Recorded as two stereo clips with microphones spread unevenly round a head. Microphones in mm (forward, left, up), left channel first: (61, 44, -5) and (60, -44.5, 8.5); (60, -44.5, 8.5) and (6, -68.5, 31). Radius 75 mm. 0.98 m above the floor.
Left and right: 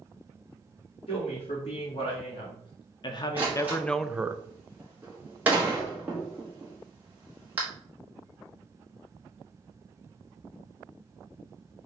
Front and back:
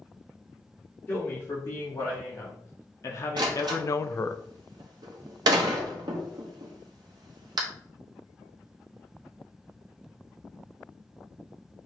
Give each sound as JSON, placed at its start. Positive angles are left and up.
{"t": 1.1, "sound": "a man speaking", "azimuth_deg": 80, "distance_m": 1.9}
{"t": 3.4, "sound": "a door slam", "azimuth_deg": -170, "distance_m": 0.7}